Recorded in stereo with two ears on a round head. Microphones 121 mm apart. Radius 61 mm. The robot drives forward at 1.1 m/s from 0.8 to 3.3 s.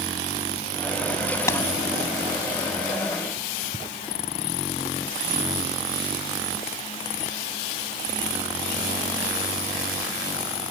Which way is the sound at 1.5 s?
20° left (ahead or behind).